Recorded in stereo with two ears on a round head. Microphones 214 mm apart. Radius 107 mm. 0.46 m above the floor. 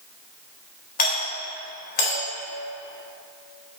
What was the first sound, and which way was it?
A doorbell, 40° left (ahead or behind).